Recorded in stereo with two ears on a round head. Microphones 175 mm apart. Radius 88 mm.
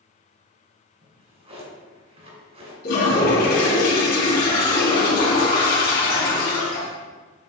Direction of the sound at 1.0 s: 35° right (ahead or behind).